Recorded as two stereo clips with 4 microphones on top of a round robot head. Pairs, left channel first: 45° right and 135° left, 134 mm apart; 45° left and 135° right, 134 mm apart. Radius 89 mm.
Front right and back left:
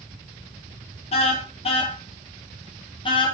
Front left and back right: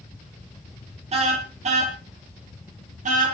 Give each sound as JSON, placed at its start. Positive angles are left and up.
{"t": 1.1, "sound": "a car horn", "azimuth_deg": -90, "distance_m": 6.0}